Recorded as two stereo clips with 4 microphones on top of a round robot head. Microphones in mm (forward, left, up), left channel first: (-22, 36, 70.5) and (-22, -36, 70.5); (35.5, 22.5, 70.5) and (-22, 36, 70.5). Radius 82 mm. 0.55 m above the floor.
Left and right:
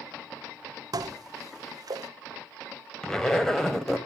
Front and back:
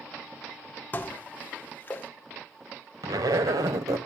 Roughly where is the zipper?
Behind.